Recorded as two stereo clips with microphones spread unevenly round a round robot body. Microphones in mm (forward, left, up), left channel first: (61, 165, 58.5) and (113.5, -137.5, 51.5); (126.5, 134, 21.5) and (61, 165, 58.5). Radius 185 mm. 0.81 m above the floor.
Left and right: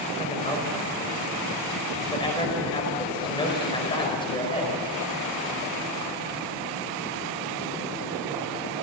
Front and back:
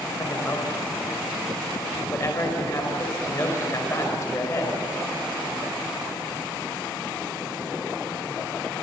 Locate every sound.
0.2 s a man speaking: 25° left, 5 m